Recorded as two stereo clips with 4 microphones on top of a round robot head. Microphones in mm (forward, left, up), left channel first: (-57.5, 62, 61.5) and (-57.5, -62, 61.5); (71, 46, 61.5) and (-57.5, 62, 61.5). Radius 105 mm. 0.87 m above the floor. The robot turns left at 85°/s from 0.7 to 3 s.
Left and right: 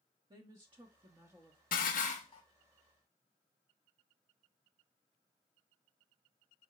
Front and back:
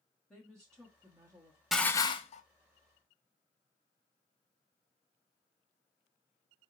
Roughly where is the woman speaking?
Right.